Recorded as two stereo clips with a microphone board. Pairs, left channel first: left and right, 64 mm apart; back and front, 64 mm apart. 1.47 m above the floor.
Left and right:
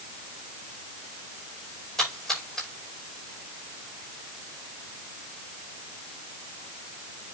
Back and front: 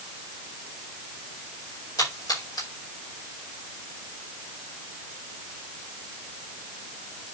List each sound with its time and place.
2.0 s a splash: 175° left, 5.5 m